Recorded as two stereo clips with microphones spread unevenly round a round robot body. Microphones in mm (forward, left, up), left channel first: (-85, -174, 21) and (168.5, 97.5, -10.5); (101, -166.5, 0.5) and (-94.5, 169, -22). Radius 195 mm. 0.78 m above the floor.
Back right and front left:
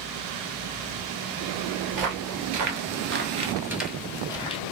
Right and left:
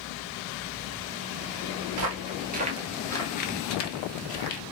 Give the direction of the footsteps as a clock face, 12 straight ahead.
9 o'clock.